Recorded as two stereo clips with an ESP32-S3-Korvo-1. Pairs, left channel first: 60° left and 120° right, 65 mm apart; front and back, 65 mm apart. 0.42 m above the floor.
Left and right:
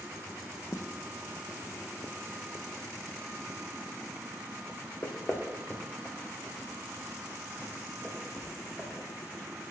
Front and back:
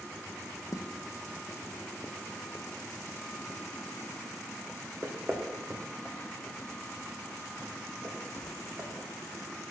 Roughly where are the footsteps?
Ahead left.